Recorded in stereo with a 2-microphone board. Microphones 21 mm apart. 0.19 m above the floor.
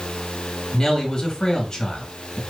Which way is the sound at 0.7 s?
30° left (ahead or behind).